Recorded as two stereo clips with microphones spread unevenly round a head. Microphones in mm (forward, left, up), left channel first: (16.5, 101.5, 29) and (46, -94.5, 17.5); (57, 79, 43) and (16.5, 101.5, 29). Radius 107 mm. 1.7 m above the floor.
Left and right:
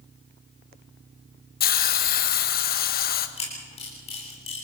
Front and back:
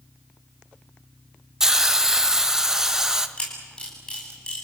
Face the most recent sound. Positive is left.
turn(degrees=40)